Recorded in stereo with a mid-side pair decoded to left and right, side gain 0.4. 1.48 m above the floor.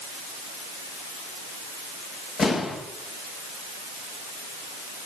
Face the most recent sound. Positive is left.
turn(degrees=60)